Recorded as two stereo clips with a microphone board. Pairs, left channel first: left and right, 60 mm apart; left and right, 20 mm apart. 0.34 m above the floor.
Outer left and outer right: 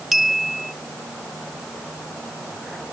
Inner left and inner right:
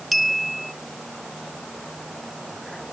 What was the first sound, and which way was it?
A clink, 5° right (ahead or behind).